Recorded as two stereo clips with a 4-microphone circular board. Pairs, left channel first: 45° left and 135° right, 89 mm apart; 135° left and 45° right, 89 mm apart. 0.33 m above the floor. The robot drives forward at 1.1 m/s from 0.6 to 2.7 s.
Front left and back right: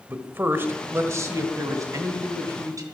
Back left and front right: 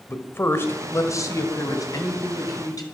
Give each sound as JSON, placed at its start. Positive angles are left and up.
{"t": 0.1, "sound": "a man speaking", "azimuth_deg": 175, "distance_m": 1.4}